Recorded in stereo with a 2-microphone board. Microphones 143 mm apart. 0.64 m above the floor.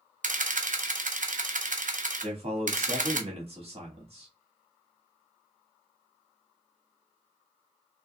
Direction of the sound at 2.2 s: 45° right (ahead or behind).